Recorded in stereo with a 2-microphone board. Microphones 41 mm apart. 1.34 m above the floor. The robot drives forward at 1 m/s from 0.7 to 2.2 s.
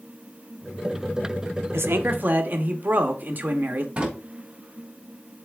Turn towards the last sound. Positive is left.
turn(degrees=-25)  # may be behind; listen again after turning